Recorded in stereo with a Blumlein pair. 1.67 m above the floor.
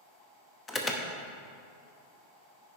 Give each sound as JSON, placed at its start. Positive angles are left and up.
{"t": 0.7, "sound": "an alarm", "azimuth_deg": 15, "distance_m": 1.0}